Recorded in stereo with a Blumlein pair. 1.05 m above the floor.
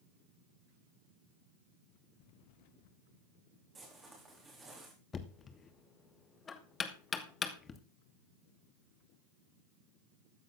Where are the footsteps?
15° right, 4 m.